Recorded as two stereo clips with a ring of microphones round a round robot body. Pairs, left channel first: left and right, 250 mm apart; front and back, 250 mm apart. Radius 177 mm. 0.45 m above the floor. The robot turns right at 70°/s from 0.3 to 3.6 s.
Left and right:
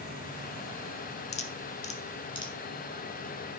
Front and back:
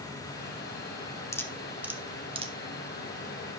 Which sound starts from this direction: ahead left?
Dripping, at 1.3 s.